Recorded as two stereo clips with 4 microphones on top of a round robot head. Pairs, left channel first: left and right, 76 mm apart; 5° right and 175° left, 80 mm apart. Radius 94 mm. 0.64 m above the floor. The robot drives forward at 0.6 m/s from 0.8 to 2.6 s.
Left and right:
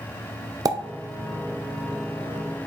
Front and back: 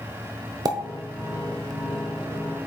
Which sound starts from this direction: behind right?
A pop, at 0.7 s.